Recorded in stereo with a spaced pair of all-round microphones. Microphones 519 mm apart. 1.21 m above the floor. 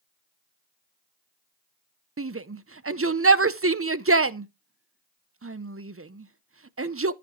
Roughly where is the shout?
Right.